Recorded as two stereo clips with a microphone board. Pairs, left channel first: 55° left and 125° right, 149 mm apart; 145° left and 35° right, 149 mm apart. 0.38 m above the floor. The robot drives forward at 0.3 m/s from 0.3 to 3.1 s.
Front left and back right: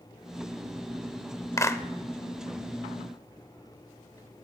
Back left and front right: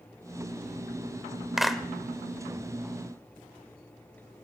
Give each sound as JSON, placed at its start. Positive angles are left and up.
{"t": 1.6, "sound": "a clap", "azimuth_deg": 45, "distance_m": 0.6}